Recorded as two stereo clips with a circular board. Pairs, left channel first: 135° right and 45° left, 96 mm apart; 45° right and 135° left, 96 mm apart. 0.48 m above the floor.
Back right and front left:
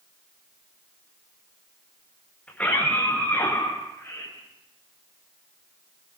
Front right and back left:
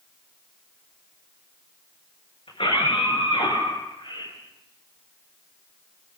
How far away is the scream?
About 9.5 m.